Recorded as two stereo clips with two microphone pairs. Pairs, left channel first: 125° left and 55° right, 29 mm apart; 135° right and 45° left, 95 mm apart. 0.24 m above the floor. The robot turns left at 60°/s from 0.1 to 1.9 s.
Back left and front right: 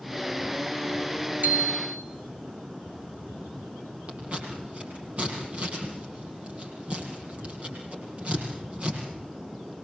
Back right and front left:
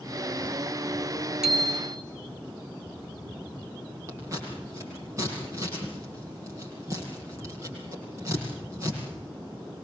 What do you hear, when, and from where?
1.4 s a bicycle bell: 40° right, 3 m; by 2.0 s 65° right, 3 m
4.1 s scissors: 10° right, 8 m